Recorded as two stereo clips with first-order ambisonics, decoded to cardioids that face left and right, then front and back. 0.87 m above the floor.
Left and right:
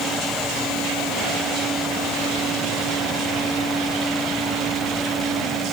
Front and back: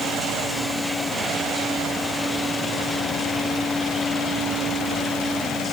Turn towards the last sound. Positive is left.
No sound to turn to.